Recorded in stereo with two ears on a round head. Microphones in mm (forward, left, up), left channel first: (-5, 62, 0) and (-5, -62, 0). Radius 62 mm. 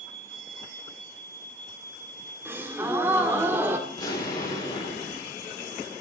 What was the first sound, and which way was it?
A gasp, 20° right (ahead or behind).